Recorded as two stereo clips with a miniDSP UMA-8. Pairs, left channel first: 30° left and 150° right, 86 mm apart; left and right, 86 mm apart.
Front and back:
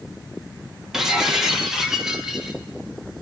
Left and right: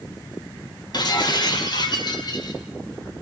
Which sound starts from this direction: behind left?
Breaking glass, at 0.9 s.